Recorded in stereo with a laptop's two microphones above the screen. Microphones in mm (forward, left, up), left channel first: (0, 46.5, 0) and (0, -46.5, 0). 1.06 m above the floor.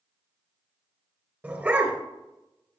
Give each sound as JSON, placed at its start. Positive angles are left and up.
{"t": 1.4, "sound": "a dog barking", "side_deg": -20, "distance_m": 3.0}